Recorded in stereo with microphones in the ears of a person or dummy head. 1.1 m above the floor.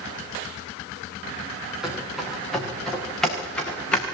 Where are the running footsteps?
Centre (ahead or behind), 7 m; by 4.0 s 10° left (ahead or behind), 5.5 m.